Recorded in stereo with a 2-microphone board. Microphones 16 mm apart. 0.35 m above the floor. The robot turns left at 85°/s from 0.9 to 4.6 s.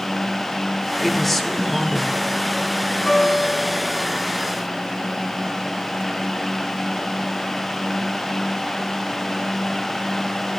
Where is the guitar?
165° left, 3 m; by 4.0 s 85° left, 3 m.